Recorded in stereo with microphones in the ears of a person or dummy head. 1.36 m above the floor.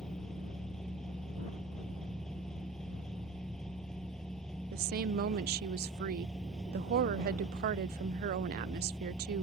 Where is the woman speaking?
45° right (ahead or behind).